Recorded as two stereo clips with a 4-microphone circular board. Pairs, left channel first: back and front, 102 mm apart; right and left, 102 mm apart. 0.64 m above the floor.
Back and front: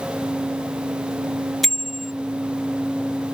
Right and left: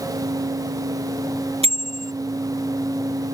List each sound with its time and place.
1.6 s a bicycle bell: 90° left